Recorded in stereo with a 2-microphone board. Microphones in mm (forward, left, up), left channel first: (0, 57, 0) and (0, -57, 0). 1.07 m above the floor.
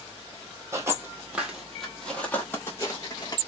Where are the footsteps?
25° right (ahead or behind), 1.5 m; by 3.4 s 35° left (ahead or behind), 1.6 m.